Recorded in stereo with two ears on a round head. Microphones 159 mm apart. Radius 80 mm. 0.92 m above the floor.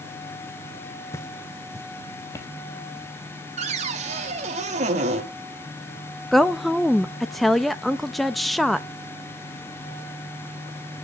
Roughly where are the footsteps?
Centre.